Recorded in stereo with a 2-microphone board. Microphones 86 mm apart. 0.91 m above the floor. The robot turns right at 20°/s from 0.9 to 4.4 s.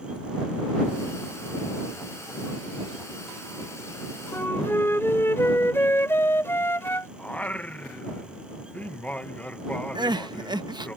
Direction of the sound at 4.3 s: 30° left (ahead or behind).